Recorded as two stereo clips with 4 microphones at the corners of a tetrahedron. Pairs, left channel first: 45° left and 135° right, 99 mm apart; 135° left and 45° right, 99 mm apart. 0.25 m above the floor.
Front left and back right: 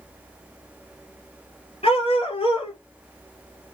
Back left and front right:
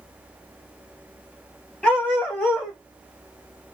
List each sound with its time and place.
1.8 s a dog barking: 55° left, 1.7 m